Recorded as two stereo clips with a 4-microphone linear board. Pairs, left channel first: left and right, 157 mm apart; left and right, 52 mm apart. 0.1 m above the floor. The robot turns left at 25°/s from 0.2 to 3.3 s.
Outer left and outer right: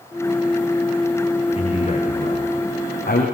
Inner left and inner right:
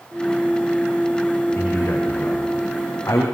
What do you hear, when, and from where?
1.6 s a man speaking: 140° left, 7 m; by 3.2 s 100° left, 7 m